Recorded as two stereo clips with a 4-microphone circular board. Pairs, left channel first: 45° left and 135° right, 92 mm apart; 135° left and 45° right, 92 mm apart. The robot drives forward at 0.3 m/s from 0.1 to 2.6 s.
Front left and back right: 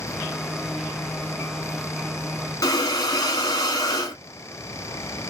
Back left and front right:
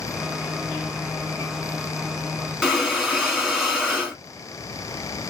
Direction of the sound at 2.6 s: 45° left.